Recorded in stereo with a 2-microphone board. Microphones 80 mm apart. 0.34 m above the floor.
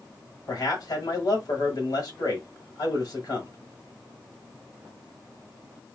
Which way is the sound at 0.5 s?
55° left (ahead or behind).